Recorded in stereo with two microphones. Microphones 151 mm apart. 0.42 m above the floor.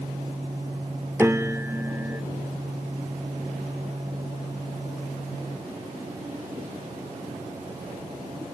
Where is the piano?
15° right (ahead or behind), 0.6 m.